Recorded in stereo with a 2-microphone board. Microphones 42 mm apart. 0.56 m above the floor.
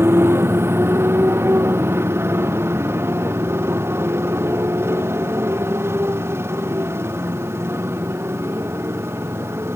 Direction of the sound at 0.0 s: 70° right (ahead or behind).